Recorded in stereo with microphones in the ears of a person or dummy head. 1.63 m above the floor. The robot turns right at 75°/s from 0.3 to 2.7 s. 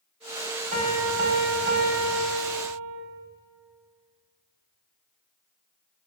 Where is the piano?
135° right, 4 m; by 3.0 s 15° left, 4 m.